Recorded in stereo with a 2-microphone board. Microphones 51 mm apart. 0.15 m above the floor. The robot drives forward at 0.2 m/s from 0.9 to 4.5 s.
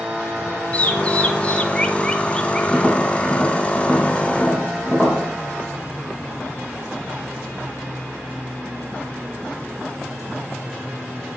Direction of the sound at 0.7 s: 30° left (ahead or behind).